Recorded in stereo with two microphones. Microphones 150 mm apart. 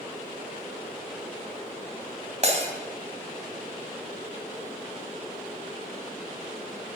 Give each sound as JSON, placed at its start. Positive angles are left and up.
{"t": 2.4, "sound": "breaking glass", "side_deg": -50, "distance_m": 2.5}